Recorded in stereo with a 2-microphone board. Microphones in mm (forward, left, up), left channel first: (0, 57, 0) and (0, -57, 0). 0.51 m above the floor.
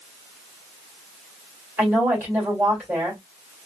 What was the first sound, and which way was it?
A woman speaking, 20° right (ahead or behind).